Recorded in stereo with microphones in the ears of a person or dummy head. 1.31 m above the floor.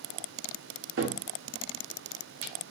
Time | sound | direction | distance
1.0 | a cupboard door | 60° right (ahead or behind) | 0.6 m